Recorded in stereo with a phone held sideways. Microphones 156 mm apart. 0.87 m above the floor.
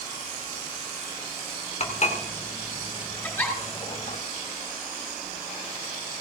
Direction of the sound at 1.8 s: 45° left (ahead or behind).